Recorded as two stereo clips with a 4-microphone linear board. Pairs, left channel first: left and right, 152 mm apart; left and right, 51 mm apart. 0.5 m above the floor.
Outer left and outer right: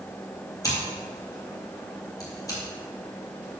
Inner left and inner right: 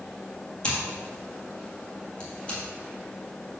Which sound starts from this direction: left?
Scissors, at 0.6 s.